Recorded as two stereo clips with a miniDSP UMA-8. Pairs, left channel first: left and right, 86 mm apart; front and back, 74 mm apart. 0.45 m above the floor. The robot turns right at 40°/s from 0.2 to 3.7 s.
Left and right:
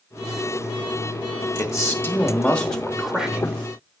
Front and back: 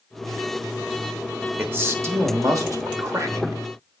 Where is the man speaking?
125° left, 1.1 m; by 3.6 s 155° right, 1.1 m.